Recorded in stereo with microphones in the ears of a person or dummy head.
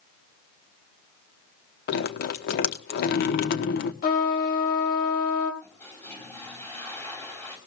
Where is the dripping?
55° left (ahead or behind), 0.9 m.